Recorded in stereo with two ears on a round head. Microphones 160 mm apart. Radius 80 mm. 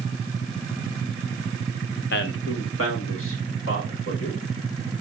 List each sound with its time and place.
2.1 s a man speaking: 60° left (ahead or behind), 0.7 m; by 4.4 s 80° left, 3.5 m